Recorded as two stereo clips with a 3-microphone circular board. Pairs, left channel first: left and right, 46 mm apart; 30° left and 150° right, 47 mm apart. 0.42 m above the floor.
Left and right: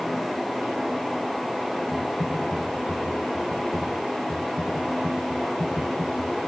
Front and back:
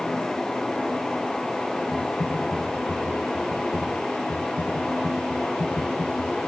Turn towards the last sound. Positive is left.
turn(degrees=20)